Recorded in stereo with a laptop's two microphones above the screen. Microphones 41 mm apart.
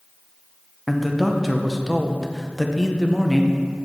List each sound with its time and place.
0.9 s a man speaking: 5° left (ahead or behind), 0.6 m